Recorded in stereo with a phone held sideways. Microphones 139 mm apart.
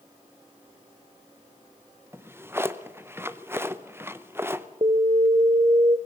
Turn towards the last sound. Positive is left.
turn(degrees=-40)  # may be behind; listen again after turning